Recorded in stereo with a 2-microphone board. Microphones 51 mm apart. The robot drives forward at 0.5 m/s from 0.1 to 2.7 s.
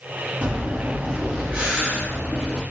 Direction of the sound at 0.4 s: 30° right (ahead or behind).